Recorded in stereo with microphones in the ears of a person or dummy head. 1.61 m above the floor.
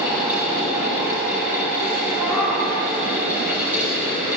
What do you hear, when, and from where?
0.0 s a fan: 5° right (ahead or behind), 9 m
2.2 s a cat meowing: 5° right (ahead or behind), 7 m